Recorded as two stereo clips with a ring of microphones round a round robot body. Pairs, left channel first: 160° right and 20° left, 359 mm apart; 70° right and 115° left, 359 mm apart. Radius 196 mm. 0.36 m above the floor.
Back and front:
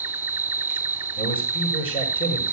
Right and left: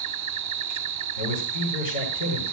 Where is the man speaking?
80° right, 7 m.